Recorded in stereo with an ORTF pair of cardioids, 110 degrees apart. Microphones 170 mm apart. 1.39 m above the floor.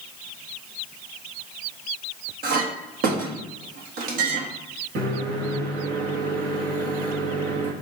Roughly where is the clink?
Ahead right.